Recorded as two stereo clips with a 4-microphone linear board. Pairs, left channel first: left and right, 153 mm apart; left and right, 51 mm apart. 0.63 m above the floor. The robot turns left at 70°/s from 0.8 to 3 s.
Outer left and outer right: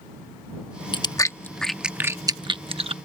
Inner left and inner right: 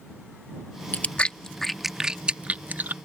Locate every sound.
0.9 s chewing: 30° left (ahead or behind); by 2.9 s 40° right (ahead or behind)